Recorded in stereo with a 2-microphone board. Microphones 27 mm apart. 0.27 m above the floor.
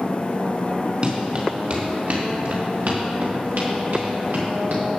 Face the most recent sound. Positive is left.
turn(degrees=-90)